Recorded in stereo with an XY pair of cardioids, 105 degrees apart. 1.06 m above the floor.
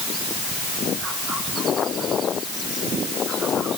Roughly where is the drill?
I don't hear a drill.